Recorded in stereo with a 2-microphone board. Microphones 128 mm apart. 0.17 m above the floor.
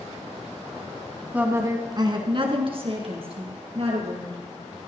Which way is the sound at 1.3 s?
10° right (ahead or behind).